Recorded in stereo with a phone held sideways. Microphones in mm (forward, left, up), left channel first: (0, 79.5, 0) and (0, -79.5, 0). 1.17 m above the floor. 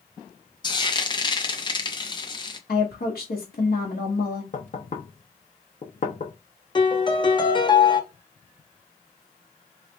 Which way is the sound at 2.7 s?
85° left.